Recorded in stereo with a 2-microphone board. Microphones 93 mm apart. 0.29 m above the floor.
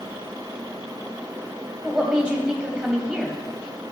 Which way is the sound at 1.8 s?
10° right (ahead or behind).